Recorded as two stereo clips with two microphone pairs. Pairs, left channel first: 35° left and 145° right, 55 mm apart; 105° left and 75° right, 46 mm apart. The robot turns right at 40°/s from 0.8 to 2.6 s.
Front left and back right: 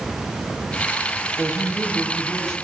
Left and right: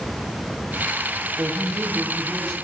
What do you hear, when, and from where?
1.4 s a woman speaking: 35° right, 7 m; by 2.5 s 10° left, 7 m